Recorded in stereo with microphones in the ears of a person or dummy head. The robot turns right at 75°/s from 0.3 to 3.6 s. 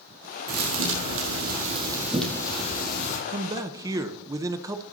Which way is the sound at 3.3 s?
40° right (ahead or behind).